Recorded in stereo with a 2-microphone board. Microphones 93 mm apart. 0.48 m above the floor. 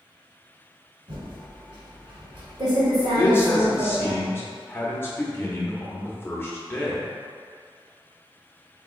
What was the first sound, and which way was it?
Typing on a keyboard, 60° right (ahead or behind).